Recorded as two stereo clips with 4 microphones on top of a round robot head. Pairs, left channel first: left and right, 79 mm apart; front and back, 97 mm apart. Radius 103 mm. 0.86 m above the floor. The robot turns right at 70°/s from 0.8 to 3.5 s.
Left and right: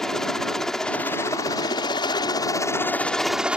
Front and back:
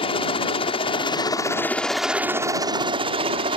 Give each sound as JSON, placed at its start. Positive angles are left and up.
{"t": 0.0, "sound": "a helicopter", "azimuth_deg": 5}